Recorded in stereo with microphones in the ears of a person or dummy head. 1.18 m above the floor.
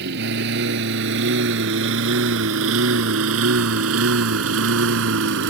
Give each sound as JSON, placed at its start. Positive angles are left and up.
{"t": 0.0, "sound": "a lawn mower", "side_deg": -60}